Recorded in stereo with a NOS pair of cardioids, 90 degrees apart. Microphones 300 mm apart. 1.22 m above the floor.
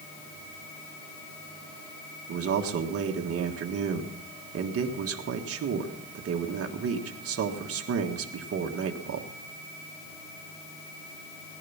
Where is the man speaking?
55° right, 1.6 m.